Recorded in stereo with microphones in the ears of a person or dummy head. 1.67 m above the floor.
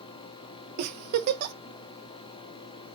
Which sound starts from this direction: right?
A giggle, at 0.8 s.